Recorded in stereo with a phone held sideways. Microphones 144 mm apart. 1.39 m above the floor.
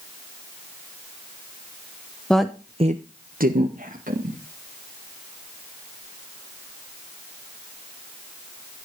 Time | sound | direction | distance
2.3 | a woman speaking | 5° left (ahead or behind) | 0.9 m